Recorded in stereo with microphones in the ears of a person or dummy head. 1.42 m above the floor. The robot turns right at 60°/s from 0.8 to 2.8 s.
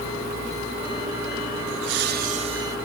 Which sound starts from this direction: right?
Laughter, at 1.7 s.